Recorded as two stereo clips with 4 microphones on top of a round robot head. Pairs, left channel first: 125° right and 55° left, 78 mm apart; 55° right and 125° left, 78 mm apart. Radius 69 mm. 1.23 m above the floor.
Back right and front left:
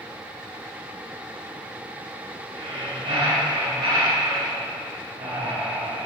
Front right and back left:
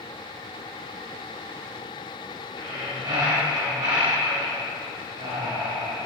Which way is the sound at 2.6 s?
80° left.